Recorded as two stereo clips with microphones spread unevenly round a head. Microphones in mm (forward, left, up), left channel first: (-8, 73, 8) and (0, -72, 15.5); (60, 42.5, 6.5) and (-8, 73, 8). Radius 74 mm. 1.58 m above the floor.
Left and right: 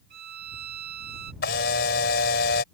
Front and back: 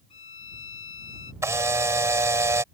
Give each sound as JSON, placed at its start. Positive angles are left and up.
{"t": 0.1, "sound": "a violin", "azimuth_deg": -60}
{"t": 1.4, "sound": "a camera shutter", "azimuth_deg": 110}